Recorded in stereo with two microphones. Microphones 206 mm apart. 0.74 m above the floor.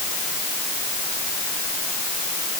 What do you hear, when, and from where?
Only background noise.